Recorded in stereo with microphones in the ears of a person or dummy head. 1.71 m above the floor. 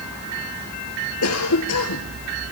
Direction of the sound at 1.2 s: 90° left.